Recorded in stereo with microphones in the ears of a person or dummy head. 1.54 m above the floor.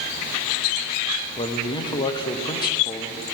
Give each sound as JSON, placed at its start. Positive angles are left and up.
{"t": 1.4, "sound": "a man speaking", "side_deg": 20, "distance_m": 0.5}